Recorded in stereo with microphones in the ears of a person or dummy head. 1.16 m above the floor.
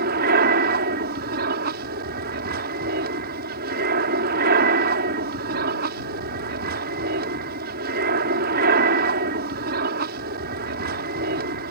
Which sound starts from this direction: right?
An aircraft, at 0.0 s.